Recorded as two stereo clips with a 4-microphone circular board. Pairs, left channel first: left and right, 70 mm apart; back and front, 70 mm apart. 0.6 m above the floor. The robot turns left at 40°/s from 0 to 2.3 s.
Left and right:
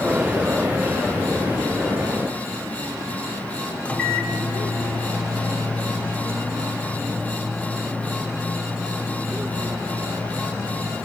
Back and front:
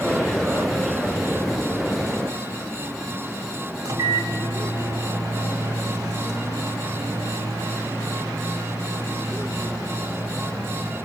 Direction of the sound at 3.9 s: 20° left.